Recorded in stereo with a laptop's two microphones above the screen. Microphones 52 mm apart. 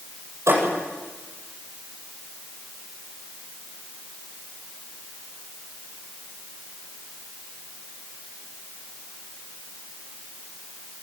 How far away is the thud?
About 10 m.